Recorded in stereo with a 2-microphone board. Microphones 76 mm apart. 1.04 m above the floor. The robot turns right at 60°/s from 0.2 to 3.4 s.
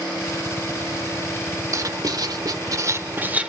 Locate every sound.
1.7 s writing: 120° right, 1.0 m; by 3.5 s 20° right, 1.0 m